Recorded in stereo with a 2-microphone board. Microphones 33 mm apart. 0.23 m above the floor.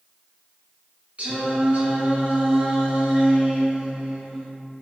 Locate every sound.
1.2 s singing: 40° right (ahead or behind), 1.2 m